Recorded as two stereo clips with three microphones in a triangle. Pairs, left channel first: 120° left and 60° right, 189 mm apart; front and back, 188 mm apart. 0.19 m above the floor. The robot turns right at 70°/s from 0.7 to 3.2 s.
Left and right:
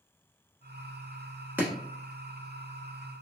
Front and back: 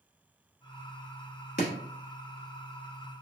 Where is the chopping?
20° left, 1.0 m; by 1.7 s 25° left, 1.0 m.